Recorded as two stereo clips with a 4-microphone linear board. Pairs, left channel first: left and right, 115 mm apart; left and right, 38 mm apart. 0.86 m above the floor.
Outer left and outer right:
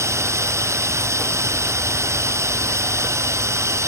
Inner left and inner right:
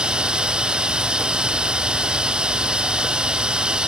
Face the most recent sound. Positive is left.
turn(degrees=-25)  # may be behind; listen again after turning